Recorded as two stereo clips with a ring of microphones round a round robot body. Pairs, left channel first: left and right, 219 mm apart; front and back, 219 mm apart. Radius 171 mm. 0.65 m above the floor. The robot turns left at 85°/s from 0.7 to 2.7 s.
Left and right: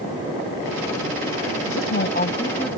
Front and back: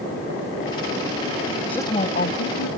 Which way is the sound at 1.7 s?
85° left.